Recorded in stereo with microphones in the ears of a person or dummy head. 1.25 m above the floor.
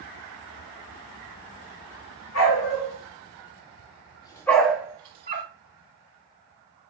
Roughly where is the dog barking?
Left.